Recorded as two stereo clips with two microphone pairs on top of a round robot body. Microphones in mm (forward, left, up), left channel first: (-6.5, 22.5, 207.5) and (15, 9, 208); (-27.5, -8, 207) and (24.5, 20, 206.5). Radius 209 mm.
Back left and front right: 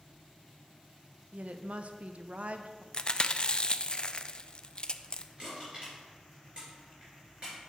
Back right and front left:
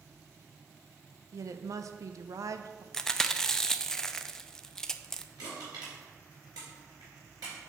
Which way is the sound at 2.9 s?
130° left.